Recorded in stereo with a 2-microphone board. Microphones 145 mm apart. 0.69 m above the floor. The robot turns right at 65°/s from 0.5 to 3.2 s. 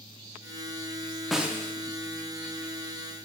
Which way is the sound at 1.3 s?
Centre (ahead or behind).